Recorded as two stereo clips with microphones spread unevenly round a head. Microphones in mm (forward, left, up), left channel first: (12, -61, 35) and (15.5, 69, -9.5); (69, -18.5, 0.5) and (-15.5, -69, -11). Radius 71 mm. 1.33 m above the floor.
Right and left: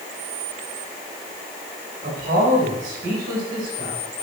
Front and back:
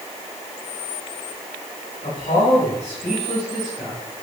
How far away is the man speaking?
About 6 m.